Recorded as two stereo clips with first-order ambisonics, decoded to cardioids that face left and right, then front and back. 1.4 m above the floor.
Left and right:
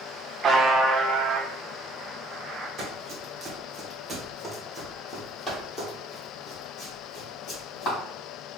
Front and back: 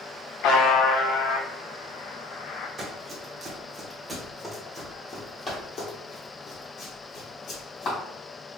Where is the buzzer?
25° right, 0.5 m.